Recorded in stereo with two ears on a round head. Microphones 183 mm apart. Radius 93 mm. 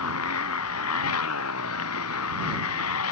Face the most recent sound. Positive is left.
turn(degrees=90)